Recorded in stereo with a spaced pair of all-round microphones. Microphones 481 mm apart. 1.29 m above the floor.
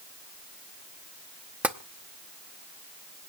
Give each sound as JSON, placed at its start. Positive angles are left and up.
{"t": 1.6, "sound": "tapping", "side_deg": -5, "distance_m": 0.7}